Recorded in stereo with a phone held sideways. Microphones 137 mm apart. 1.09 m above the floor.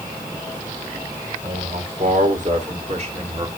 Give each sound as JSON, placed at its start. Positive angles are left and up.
{"t": 1.4, "sound": "a man speaking", "side_deg": -75, "distance_m": 4.5}